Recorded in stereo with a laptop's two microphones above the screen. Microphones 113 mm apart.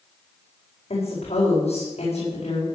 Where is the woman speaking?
65° left (ahead or behind), 4.5 m.